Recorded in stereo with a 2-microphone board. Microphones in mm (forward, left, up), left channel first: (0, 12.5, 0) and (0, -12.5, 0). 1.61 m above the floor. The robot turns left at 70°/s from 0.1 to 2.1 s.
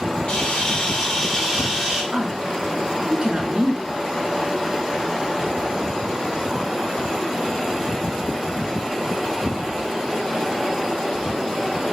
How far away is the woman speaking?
About 1.0 m.